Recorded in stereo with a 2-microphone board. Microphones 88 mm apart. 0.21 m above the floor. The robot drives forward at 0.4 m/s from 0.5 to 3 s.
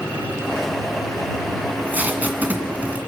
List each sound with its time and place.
1.7 s tape being pulled: 20° right (ahead or behind), 2.5 m; by 3.0 s 15° right (ahead or behind), 2.5 m